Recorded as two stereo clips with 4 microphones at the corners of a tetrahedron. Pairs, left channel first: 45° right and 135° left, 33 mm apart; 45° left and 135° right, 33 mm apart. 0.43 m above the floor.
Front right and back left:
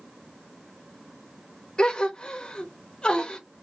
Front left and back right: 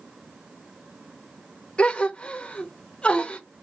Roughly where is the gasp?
Ahead.